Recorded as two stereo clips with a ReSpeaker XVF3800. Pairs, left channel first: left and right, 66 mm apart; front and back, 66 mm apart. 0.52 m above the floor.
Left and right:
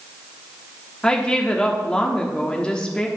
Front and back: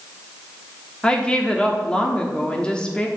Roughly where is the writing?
I don't hear writing.